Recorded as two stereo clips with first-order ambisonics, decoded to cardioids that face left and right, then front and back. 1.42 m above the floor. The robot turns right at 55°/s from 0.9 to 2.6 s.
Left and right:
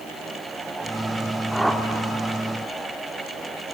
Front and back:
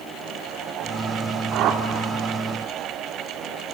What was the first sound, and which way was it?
A whoosh, straight behind.